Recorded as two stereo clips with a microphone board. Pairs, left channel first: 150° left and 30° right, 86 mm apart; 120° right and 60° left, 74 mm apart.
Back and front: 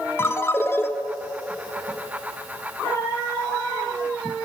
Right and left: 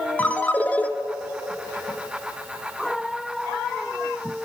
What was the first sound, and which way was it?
A ringtone, 175° right.